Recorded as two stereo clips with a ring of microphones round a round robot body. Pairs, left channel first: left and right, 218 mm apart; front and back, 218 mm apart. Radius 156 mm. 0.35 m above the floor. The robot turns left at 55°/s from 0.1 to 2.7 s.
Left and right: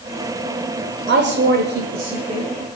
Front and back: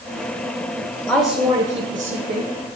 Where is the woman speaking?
85° right, 1.3 m; by 2.5 s 160° right, 1.3 m.